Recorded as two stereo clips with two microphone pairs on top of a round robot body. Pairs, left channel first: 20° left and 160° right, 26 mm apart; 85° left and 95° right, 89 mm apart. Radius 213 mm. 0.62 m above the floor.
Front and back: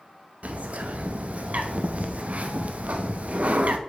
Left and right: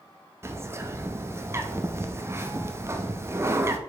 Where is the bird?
150° right, 1.1 m.